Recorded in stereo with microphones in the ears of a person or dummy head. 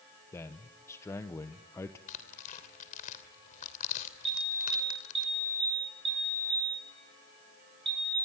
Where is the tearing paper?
45° left (ahead or behind), 3 m.